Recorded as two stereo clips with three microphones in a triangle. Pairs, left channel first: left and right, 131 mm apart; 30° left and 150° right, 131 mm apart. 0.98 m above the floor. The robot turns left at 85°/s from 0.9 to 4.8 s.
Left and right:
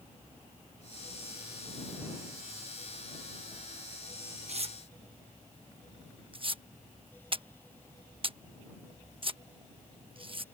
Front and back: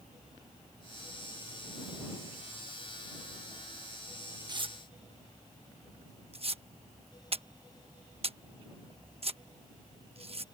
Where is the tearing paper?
100° right; by 10.4 s 125° right.